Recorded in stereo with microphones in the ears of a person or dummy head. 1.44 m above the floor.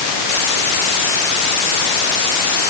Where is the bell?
I don't hear a bell.